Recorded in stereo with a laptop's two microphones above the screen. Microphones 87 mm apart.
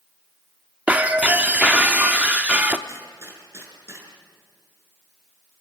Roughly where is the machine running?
I don't hear a machine running.